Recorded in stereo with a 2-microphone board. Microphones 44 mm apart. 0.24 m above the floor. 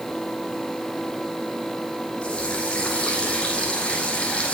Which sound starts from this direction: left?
A running tap, at 2.2 s.